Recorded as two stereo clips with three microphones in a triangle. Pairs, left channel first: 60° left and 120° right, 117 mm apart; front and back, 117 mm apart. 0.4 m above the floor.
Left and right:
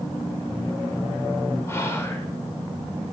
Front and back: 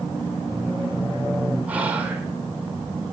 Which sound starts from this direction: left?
Whispering, at 1.7 s.